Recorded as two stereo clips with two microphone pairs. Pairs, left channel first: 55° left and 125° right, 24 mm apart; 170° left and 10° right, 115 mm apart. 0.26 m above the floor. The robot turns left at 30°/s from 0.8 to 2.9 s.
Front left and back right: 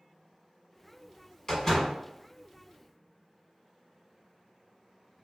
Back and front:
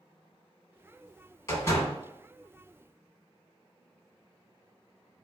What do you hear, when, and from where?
1.5 s a door slam: 115° left, 1.5 m; by 1.9 s 100° left, 1.5 m